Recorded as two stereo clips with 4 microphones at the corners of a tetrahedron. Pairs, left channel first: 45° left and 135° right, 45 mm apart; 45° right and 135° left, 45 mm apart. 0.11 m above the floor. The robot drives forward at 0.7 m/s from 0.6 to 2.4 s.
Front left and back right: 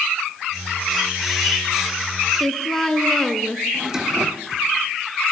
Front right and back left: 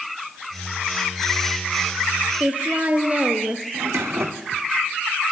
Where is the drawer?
150° left, 2.5 m.